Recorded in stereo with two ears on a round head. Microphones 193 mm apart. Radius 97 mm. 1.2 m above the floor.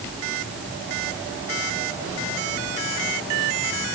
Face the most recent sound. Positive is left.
No sound to turn to.